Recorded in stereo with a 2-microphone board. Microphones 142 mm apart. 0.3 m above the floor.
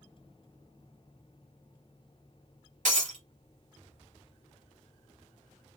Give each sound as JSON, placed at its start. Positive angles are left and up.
{"t": 2.9, "sound": "breaking glass", "side_deg": -65, "distance_m": 1.0}